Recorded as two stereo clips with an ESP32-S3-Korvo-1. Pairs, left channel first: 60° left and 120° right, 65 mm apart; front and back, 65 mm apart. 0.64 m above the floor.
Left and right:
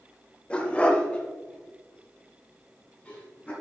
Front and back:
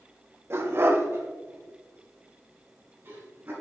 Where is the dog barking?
135° left, 0.9 m; by 3.5 s 130° left, 3 m.